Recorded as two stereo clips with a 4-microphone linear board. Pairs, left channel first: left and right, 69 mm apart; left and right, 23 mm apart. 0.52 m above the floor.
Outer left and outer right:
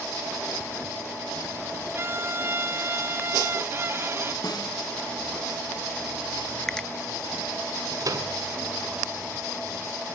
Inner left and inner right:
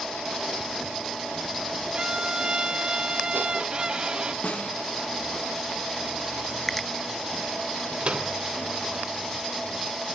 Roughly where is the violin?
Right.